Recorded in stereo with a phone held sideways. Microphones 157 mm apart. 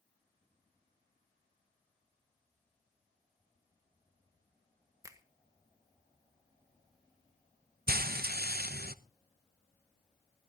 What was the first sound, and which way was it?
A finger snap, 20° right (ahead or behind).